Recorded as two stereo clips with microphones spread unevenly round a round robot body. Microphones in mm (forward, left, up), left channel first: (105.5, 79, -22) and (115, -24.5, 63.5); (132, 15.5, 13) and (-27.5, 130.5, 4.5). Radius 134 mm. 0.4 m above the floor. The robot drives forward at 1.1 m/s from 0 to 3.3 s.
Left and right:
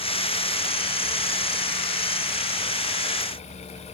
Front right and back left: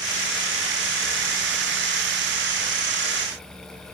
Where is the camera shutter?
I don't hear a camera shutter.